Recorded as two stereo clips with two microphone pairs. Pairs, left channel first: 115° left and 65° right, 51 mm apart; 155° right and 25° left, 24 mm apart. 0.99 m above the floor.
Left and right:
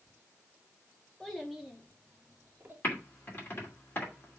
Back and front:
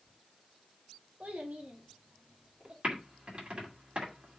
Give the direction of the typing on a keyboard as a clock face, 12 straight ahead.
10 o'clock.